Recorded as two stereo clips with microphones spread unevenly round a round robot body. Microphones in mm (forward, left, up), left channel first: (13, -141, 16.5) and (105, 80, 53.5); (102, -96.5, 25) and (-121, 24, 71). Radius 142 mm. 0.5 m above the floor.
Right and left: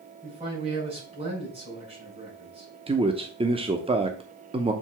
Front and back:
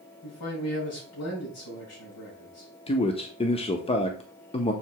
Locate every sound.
0.2 s a man speaking: straight ahead, 5.5 m
2.9 s a man speaking: straight ahead, 0.8 m